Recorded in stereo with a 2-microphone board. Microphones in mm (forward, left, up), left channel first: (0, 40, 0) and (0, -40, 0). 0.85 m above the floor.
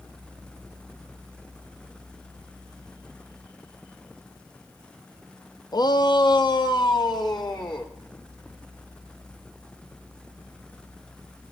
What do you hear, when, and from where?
5.7 s a shout: 55° left (ahead or behind), 0.6 m; by 7.9 s 60° left (ahead or behind), 2 m